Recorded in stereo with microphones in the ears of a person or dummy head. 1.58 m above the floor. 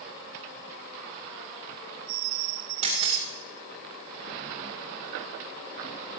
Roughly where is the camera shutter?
Right.